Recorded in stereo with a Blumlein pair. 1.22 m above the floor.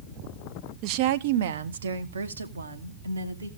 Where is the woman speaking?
40° right, 0.6 m; by 3.5 s 80° right, 1.8 m.